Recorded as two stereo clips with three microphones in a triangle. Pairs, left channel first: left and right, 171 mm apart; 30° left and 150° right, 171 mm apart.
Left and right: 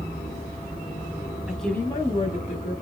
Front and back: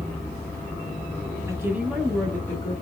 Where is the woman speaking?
165° right, 1.0 m; by 2.7 s 100° left, 1.5 m.